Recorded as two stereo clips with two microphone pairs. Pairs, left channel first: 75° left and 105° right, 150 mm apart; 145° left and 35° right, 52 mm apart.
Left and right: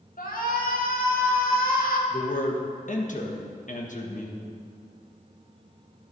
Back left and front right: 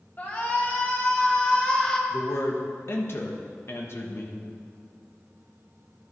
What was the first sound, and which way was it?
A shout, 95° left.